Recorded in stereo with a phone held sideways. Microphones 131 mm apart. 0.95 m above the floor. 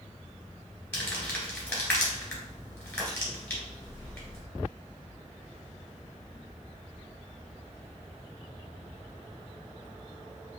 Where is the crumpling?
15° left (ahead or behind), 2.0 m.